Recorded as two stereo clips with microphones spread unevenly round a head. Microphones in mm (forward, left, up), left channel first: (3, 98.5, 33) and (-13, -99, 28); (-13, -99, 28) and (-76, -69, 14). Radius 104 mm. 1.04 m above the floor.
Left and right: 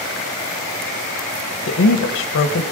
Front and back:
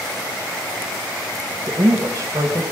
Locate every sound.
1.6 s a woman speaking: 100° left, 1.0 m